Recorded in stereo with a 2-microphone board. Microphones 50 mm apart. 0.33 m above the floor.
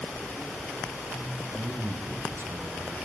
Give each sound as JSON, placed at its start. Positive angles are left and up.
{"t": 1.6, "sound": "a man speaking", "side_deg": -50, "distance_m": 2.0}